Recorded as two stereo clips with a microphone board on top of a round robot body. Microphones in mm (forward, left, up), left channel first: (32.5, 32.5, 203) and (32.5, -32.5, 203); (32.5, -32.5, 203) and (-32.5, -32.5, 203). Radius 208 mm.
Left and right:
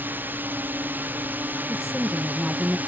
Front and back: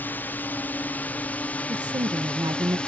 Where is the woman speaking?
175° right.